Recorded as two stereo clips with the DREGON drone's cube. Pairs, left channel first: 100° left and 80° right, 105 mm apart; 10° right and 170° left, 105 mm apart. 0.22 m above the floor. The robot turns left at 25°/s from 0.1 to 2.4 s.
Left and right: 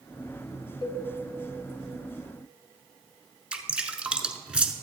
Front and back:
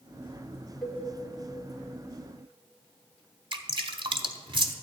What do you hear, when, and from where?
0.8 s a cowbell: 80° left, 1.3 m; by 1.0 s 75° left, 1.3 m
3.5 s dripping: 155° right, 0.7 m